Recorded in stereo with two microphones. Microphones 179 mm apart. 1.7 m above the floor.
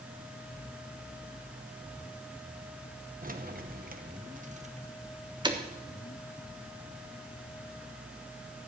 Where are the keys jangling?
50° right (ahead or behind), 1.1 m; by 5.6 s 25° right (ahead or behind), 1.3 m.